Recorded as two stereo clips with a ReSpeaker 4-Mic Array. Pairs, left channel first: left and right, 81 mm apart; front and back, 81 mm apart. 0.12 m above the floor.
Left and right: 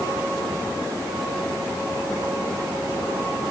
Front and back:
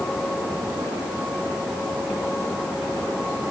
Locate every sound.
Only background noise.